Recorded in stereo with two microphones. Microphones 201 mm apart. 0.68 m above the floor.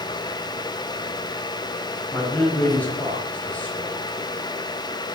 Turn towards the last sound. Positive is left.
turn(degrees=5)  # may be behind; listen again after turning